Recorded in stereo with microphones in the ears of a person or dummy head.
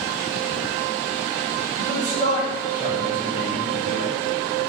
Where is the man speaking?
55° right (ahead or behind), 1.1 m; by 4.1 s 55° left (ahead or behind), 1.0 m.